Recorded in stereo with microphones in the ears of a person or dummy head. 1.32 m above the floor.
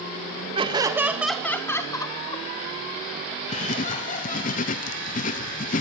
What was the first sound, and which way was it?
Laughter, 30° right (ahead or behind).